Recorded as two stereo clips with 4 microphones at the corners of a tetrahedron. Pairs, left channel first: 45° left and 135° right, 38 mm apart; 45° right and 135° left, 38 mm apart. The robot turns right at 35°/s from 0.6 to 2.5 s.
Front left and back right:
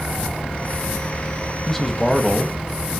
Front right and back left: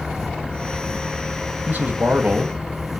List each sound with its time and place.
1.7 s a man speaking: 125° left, 1.4 m; by 2.9 s 155° left, 1.4 m